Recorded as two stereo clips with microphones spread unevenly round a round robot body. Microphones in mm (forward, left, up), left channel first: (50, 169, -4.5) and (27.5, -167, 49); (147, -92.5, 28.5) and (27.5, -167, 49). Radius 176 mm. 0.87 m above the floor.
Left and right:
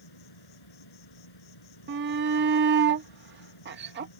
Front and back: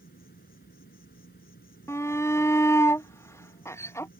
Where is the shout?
35° right.